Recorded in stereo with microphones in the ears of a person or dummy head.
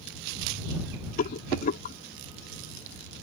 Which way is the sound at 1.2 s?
45° left (ahead or behind).